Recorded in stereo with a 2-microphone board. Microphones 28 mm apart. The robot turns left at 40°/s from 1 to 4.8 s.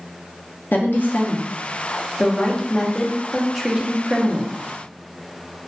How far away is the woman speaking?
About 0.5 m.